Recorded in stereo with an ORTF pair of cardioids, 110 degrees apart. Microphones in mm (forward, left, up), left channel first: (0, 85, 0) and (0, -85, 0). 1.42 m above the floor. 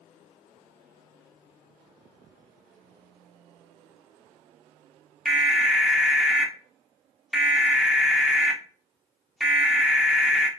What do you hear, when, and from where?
5.2 s an alarm: straight ahead, 0.7 m